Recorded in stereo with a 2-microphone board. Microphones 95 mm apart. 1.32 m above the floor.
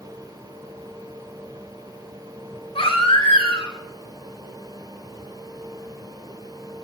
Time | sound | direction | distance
2.8 | a baby crying | 80° left | 3 m